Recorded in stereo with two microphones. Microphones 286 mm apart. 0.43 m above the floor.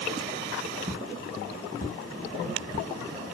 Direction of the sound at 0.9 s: 5° right (ahead or behind).